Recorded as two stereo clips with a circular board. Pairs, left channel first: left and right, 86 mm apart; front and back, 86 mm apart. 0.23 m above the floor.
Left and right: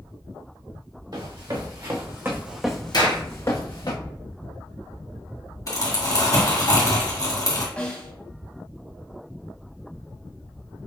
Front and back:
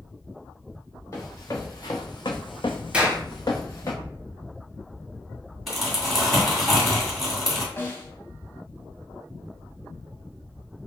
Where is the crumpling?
90° left, 1.9 m.